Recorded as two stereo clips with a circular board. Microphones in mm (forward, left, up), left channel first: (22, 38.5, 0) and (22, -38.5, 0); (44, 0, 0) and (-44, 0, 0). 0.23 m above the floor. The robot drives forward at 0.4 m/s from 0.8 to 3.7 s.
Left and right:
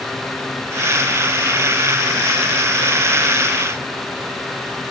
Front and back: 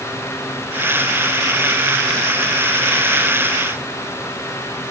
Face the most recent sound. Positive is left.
No sound to turn to.